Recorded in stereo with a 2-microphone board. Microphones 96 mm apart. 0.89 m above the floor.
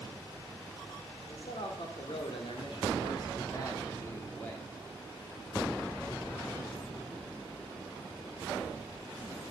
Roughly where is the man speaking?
Left.